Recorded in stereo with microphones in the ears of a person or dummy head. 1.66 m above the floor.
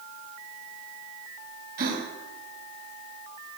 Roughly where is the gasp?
Right.